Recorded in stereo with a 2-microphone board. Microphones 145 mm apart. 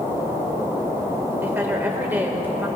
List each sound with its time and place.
1.4 s a woman speaking: 15° right (ahead or behind), 1.4 m